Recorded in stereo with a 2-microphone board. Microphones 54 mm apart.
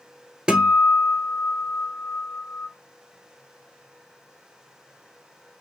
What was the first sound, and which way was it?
A guitar, 15° right (ahead or behind).